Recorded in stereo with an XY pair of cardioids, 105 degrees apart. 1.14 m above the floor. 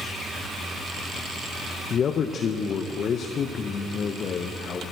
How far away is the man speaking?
About 0.6 m.